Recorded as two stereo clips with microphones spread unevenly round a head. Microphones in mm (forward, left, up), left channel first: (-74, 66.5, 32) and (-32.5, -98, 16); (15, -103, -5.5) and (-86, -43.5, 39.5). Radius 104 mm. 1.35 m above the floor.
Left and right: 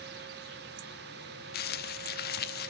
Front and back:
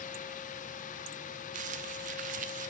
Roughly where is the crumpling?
Behind left.